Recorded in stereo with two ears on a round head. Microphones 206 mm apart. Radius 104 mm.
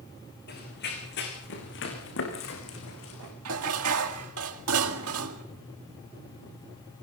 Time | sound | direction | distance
0.5 | running footsteps | 50° left (ahead or behind) | 8 m
3.5 | dishes clattering | 80° right | 2 m